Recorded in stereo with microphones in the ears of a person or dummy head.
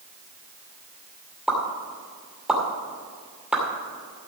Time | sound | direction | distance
1.5 | a pop | 5° right (ahead or behind) | 2.5 m